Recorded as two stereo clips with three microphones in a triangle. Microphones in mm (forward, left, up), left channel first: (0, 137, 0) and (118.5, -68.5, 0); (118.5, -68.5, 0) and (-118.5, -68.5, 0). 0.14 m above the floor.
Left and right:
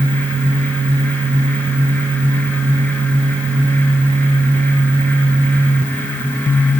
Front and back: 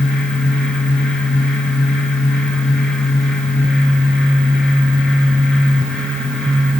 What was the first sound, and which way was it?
Only background noise.